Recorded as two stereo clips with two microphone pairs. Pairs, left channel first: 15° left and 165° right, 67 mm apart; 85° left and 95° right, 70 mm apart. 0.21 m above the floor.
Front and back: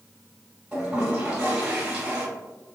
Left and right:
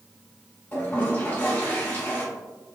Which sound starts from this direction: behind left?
A toilet flushing, at 0.7 s.